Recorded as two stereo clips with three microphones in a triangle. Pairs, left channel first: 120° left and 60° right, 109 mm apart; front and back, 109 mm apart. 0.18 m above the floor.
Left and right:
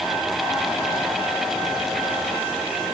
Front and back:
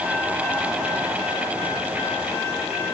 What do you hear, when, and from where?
Only background noise.